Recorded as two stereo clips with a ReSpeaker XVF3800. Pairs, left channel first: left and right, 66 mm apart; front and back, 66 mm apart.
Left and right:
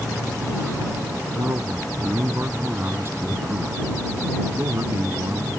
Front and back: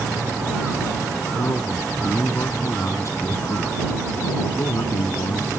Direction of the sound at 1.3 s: 40° right.